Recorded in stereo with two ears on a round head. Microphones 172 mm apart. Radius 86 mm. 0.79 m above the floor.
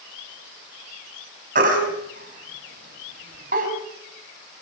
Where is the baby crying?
50° right (ahead or behind), 4.5 m.